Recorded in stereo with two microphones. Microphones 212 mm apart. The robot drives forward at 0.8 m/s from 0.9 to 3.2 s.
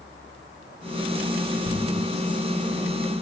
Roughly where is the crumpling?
Right.